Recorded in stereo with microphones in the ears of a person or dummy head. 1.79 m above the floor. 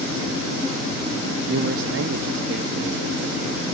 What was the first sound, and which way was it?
A man speaking, 65° right (ahead or behind).